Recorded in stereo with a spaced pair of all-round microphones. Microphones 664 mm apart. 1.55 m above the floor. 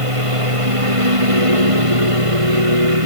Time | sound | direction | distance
0.0 | a lawn mower | 50° right (ahead or behind) | ?